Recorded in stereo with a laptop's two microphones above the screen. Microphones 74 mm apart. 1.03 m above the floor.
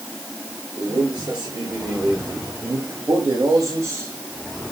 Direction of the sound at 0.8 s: 70° right (ahead or behind).